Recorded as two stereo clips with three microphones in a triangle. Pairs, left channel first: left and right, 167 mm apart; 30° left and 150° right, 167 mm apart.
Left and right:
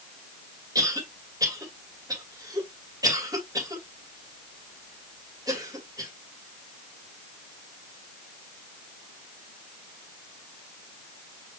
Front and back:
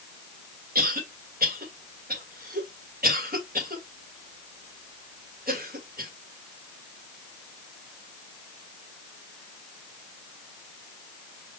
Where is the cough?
155° right, 2.5 m.